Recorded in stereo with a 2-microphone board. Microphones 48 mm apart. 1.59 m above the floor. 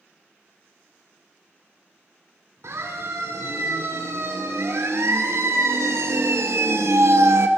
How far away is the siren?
About 6 m.